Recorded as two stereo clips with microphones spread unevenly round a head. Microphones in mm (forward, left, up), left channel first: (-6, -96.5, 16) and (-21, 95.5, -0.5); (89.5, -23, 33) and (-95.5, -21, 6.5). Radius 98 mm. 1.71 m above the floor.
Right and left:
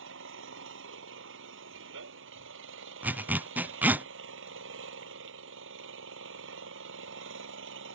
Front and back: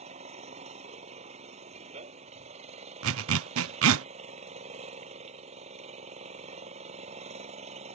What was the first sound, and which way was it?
An engine running, 120° left.